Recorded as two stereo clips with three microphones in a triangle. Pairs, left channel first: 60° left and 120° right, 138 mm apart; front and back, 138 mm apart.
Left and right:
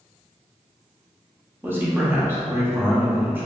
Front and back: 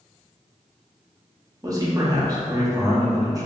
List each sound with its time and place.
1.6 s a man speaking: 175° right, 0.6 m